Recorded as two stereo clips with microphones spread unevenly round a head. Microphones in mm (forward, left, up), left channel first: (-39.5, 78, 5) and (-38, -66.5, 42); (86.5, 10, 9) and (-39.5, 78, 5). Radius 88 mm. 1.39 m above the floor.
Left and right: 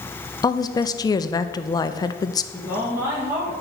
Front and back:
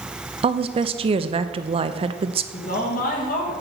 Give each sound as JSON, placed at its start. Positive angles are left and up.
{"t": 0.4, "sound": "a woman speaking", "azimuth_deg": 125, "distance_m": 0.5}
{"t": 2.5, "sound": "a woman speaking", "azimuth_deg": -10, "distance_m": 1.9}